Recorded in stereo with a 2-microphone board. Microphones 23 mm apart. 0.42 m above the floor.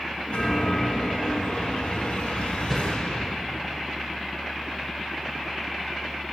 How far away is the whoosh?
About 0.8 m.